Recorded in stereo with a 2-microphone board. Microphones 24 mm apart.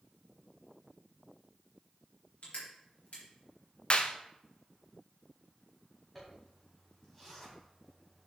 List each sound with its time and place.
2.4 s crushing: 60° left (ahead or behind), 4 m
3.9 s a clap: 45° left (ahead or behind), 0.7 m
6.2 s a zipper: 10° left (ahead or behind), 3 m